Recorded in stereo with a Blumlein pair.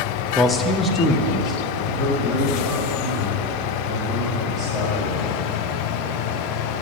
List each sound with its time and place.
0.3 s a man speaking: 10° left, 0.5 m; by 5.4 s 25° left, 4 m